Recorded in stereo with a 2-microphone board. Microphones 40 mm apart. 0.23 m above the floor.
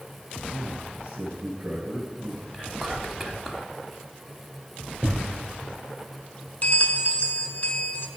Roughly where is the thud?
Right.